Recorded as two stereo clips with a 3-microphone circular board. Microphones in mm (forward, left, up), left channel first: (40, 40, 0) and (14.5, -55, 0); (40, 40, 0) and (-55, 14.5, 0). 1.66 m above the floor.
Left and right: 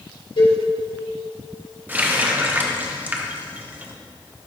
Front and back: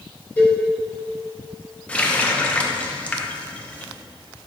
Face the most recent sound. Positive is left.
turn(degrees=-50)